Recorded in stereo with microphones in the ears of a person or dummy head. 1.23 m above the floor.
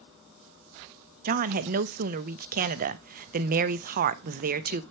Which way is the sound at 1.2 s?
45° right (ahead or behind).